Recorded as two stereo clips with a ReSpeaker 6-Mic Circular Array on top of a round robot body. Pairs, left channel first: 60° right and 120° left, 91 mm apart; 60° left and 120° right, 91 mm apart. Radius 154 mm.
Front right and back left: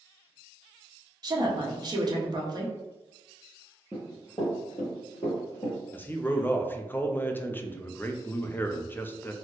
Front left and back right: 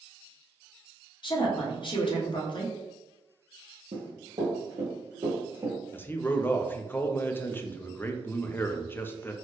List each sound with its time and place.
1.2 s a woman speaking: 80° left, 1.1 m
3.9 s running footsteps: 135° right, 1.5 m; by 5.8 s 45° right, 1.6 m
5.9 s a man speaking: straight ahead, 0.6 m